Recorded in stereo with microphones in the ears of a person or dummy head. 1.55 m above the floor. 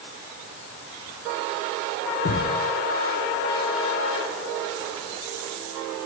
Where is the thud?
65° left (ahead or behind), 2 m.